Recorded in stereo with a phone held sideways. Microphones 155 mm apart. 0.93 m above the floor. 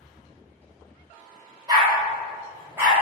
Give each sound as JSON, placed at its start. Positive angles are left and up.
{"t": 1.7, "sound": "a dog barking", "side_deg": -25, "distance_m": 1.0}